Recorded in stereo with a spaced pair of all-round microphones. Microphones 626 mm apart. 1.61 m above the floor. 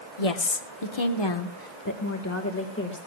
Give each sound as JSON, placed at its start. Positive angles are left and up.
{"t": 0.2, "sound": "a woman speaking", "side_deg": 60, "distance_m": 1.2}